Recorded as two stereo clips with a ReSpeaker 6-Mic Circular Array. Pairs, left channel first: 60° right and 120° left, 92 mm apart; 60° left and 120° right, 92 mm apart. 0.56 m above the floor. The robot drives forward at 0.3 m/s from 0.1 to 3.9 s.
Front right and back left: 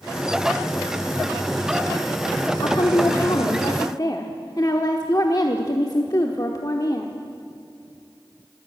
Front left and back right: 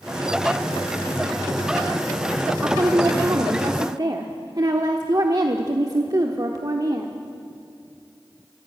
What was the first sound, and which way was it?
A woman speaking, 65° right.